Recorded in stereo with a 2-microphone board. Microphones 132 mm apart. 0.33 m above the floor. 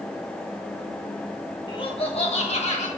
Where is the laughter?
35° left (ahead or behind), 1.3 m; by 2.9 s 60° left (ahead or behind), 2 m.